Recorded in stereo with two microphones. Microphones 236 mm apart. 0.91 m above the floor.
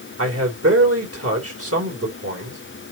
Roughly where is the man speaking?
Right.